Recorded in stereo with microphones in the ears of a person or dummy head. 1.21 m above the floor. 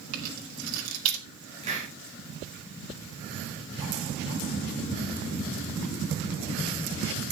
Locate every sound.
0.1 s keys jangling: 85° right, 2.5 m
1.6 s a hiss: 30° right (ahead or behind), 4.5 m